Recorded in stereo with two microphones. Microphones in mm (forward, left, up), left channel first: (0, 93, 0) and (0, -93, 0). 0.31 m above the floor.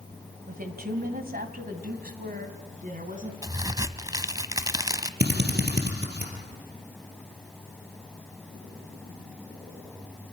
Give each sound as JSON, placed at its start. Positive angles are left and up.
{"t": 0.5, "sound": "a woman speaking", "side_deg": -50, "distance_m": 2.0}
{"t": 3.4, "sound": "a crack", "side_deg": -20, "distance_m": 0.8}
{"t": 5.2, "sound": "a drill", "side_deg": -65, "distance_m": 3.5}